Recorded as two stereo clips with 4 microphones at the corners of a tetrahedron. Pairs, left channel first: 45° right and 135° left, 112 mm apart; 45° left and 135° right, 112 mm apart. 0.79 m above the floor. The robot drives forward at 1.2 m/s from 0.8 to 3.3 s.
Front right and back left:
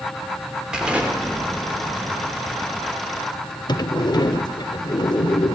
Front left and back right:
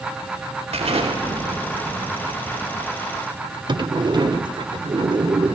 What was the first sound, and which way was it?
An explosion, 140° right.